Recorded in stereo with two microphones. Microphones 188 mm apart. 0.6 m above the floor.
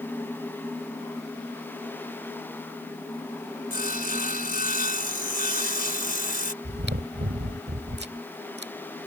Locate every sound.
3.7 s sawing: 55° left (ahead or behind)
6.6 s chewing: 75° right (ahead or behind)